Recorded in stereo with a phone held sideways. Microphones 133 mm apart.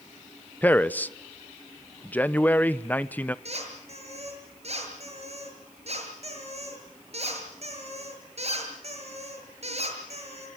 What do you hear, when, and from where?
0.6 s a man speaking: 10° left (ahead or behind), 0.7 m
3.5 s a squeak: 55° right (ahead or behind), 6 m